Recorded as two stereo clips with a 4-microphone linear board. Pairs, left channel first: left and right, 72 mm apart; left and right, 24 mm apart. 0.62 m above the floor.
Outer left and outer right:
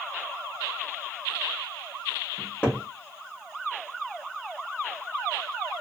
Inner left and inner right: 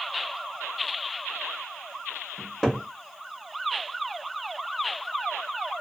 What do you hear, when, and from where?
2.4 s a cupboard door: 20° left (ahead or behind), 0.8 m